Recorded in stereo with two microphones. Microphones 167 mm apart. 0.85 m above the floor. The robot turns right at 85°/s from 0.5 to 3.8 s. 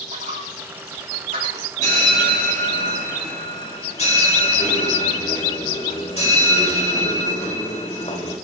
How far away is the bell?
About 4 m.